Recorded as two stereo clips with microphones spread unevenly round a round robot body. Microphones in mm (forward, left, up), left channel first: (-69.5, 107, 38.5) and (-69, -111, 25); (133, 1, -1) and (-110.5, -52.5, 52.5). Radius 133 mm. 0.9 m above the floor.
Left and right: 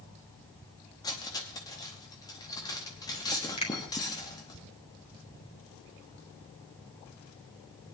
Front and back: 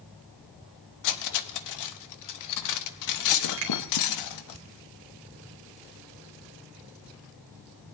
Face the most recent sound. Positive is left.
turn(degrees=150)